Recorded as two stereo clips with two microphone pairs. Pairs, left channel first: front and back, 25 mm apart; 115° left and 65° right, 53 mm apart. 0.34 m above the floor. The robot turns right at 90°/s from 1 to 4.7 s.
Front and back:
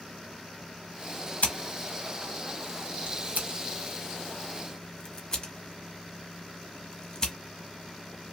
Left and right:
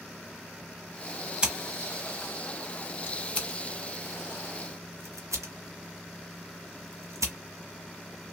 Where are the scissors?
5° left, 1.2 m; by 7.3 s 60° right, 1.2 m.